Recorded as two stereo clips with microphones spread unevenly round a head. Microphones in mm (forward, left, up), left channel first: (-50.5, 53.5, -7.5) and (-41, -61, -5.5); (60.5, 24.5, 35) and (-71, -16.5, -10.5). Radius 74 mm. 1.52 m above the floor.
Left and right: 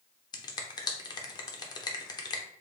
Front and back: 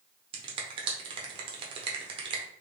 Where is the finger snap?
135° left, 0.7 m.